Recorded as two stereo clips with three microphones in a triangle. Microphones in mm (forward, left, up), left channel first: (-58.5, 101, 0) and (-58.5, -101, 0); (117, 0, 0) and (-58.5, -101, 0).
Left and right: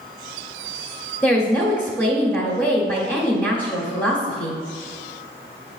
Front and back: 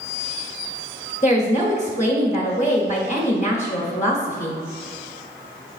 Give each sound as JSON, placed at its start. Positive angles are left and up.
{"t": 1.2, "sound": "a woman speaking", "azimuth_deg": 20, "distance_m": 0.9}